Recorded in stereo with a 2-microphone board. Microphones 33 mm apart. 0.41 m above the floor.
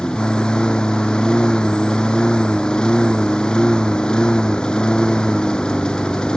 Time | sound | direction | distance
0.0 | a lawn mower | 25° left (ahead or behind) | ?